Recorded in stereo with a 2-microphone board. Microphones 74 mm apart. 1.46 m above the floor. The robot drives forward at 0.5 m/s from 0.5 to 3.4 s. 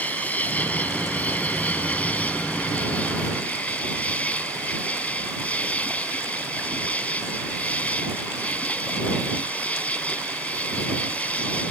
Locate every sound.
0.0 s an insect: 20° left (ahead or behind)